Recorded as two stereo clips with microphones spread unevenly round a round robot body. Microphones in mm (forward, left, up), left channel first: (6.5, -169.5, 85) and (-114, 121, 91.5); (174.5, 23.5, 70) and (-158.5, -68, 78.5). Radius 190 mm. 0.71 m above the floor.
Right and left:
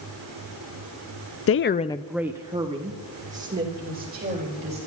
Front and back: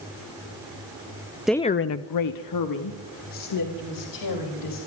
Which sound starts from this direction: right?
A woman speaking, at 1.5 s.